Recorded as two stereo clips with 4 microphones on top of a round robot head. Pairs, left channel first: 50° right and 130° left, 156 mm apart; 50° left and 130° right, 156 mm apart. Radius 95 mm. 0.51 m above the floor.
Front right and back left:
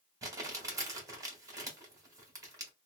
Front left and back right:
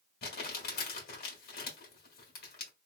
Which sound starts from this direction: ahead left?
Crumpling, at 0.2 s.